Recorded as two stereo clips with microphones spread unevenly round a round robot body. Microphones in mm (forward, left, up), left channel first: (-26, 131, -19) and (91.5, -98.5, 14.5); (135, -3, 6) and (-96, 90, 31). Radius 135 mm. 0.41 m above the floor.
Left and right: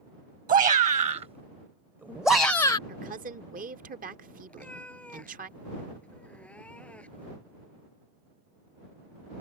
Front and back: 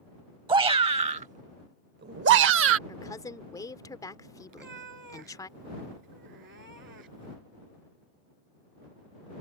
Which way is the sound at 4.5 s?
155° right.